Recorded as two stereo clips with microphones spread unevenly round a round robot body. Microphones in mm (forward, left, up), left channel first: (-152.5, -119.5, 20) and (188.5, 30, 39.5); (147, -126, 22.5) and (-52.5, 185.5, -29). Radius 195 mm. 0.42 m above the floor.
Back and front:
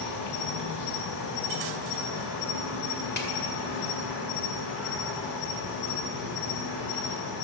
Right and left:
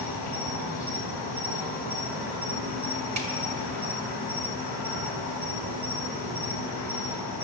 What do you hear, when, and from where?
0.0 s an insect: 170° right, 3 m
3.2 s a snare drum: 150° left, 1.9 m